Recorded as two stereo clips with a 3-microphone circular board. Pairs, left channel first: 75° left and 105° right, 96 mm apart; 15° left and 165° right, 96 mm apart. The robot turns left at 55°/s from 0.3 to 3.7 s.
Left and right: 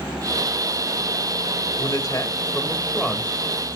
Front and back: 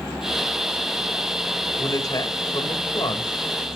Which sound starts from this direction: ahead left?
A man speaking, at 1.8 s.